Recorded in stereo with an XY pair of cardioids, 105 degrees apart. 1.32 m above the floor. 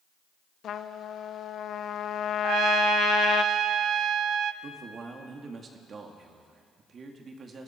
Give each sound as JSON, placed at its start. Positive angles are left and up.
{"t": 0.6, "sound": "a trumpet", "azimuth_deg": 60, "distance_m": 0.9}
{"t": 2.4, "sound": "a trumpet", "azimuth_deg": -60, "distance_m": 0.7}
{"t": 4.6, "sound": "a man speaking", "azimuth_deg": -45, "distance_m": 2.0}